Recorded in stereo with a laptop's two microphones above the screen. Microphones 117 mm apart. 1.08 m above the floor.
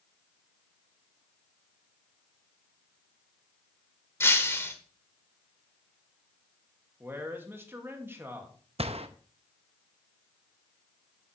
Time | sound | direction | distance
4.2 | breaking glass | 20° left (ahead or behind) | 1.5 m
7.0 | a man speaking | 20° right (ahead or behind) | 1.9 m
8.8 | a gunshot | 60° right (ahead or behind) | 0.7 m